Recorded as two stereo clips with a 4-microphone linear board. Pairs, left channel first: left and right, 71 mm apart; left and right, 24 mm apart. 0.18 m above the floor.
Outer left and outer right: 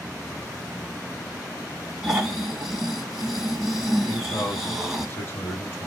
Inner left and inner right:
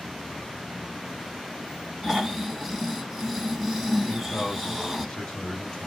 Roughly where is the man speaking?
Left.